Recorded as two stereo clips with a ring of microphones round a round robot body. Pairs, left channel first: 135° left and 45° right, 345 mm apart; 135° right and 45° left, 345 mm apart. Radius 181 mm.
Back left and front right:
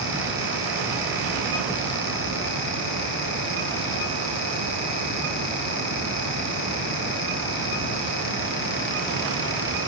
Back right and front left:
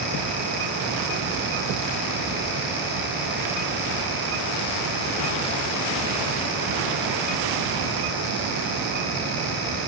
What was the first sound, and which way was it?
Only background noise.